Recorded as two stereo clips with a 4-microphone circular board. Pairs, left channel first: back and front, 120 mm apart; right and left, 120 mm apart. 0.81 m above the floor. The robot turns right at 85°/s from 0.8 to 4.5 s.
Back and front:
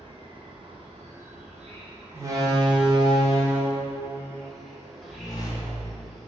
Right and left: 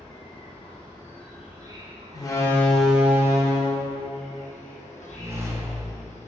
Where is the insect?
45° right, 0.9 m; by 6.3 s 90° right, 0.9 m.